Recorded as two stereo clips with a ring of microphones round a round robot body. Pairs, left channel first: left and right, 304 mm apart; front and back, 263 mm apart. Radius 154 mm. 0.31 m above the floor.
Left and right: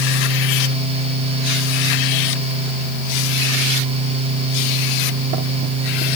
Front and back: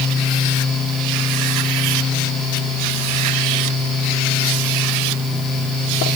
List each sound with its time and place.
Only background noise.